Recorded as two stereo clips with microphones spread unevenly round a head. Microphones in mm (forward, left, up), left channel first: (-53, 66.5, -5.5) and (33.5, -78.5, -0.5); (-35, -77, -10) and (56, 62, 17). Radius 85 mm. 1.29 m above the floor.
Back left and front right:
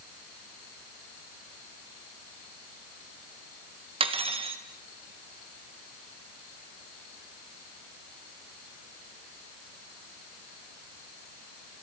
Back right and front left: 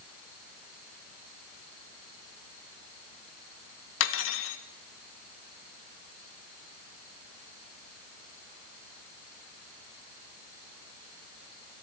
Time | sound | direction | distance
4.0 | cutlery clinking | 115° right | 1.2 m